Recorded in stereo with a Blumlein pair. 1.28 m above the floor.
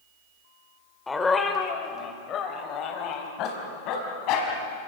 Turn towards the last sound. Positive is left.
turn(degrees=40)